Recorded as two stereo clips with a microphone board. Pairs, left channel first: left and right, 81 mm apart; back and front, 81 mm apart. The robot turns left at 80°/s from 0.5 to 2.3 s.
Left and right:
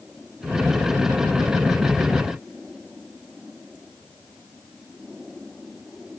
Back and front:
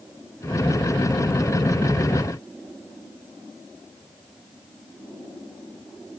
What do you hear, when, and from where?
Only background noise.